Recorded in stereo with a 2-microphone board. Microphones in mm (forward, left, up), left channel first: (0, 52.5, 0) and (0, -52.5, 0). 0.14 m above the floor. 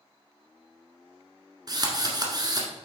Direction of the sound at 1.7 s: 40° right (ahead or behind).